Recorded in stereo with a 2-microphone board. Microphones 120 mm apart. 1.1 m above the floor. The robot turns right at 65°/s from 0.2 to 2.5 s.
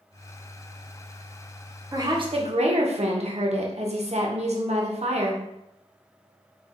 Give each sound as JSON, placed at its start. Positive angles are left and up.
{"t": 1.9, "sound": "a woman speaking", "azimuth_deg": -155, "distance_m": 0.6}